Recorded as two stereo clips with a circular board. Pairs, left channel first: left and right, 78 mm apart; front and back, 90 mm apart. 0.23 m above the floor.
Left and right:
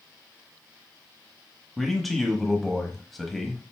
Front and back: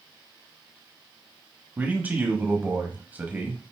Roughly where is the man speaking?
Behind.